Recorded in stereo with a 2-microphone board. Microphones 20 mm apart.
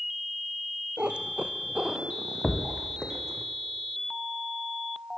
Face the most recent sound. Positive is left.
turn(degrees=75)  # may be behind; listen again after turning